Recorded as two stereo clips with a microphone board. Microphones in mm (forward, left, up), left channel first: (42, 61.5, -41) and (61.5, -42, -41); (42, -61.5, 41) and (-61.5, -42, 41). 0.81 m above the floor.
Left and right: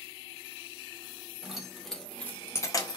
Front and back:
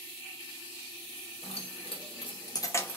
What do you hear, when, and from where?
1.4 s keys jangling: 10° left, 1.1 m; by 3.0 s 60° left, 0.5 m